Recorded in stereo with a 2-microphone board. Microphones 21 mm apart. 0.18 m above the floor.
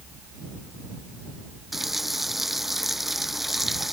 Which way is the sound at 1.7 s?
15° right (ahead or behind).